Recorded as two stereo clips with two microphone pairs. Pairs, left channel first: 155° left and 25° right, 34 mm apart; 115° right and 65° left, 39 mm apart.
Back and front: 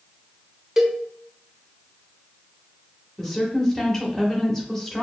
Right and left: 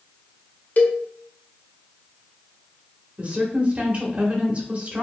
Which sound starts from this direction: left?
A woman speaking, at 3.2 s.